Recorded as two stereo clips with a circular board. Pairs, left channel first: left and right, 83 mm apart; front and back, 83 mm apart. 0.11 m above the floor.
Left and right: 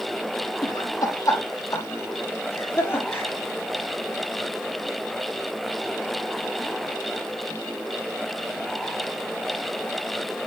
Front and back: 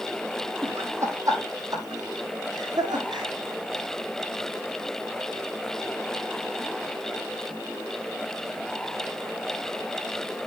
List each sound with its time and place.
0.6 s laughter: 125° left, 3 m; by 3.3 s 155° left, 5 m